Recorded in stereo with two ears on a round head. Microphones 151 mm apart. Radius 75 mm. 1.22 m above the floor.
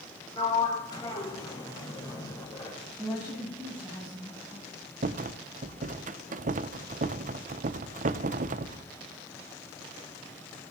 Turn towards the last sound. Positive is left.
turn(degrees=-45)  # may be behind; listen again after turning